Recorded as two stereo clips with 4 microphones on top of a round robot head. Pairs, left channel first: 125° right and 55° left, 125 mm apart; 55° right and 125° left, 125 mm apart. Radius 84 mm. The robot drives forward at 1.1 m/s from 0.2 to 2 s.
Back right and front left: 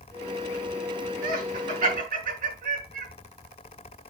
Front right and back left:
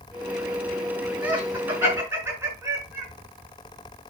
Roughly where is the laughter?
Ahead left.